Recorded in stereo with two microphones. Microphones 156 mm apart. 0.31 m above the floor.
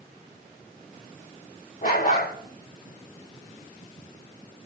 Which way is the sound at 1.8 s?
65° left (ahead or behind).